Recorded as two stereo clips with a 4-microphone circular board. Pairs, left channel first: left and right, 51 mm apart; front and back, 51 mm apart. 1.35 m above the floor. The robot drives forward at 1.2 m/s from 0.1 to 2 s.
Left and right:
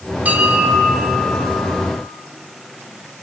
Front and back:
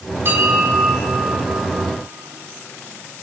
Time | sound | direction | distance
0.2 | a bell | 145° right | 2.5 m